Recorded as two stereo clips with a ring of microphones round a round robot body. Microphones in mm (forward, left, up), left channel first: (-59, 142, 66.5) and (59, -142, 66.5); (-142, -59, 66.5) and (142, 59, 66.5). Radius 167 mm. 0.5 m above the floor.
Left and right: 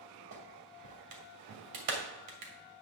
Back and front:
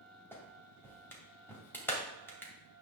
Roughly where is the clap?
Right.